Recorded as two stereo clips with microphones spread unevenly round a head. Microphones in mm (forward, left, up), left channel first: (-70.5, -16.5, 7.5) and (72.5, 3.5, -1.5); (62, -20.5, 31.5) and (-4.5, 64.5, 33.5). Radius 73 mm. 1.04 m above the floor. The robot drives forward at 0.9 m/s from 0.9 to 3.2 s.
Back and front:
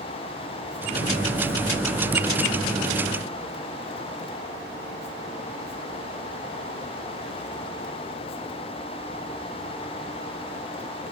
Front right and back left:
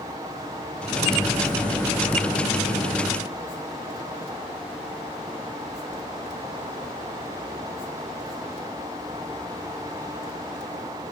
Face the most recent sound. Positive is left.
No sound to turn to.